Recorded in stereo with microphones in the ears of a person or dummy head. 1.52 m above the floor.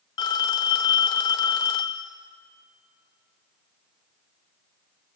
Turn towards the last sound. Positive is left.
turn(degrees=20)  # may be behind; listen again after turning